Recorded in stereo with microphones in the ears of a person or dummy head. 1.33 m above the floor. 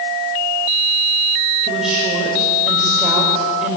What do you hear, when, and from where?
1.6 s a woman speaking: 5° right (ahead or behind), 5 m